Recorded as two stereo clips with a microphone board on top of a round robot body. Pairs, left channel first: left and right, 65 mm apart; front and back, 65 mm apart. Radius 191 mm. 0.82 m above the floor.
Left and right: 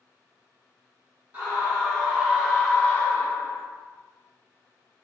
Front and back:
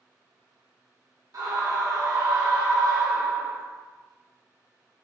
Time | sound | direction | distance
1.3 | a scream | 150° right | 1.4 m